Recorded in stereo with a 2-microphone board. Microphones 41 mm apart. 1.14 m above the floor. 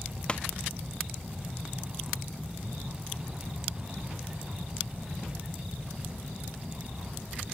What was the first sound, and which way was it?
A pop, 25° left (ahead or behind).